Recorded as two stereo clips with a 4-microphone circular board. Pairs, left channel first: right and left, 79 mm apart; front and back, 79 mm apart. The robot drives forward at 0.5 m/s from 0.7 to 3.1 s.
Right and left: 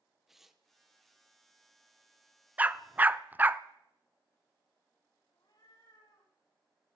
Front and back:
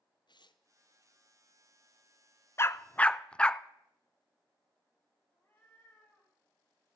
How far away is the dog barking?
About 0.7 m.